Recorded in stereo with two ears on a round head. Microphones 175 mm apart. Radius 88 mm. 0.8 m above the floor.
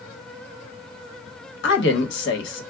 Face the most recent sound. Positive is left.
turn(degrees=65)  # may be behind; listen again after turning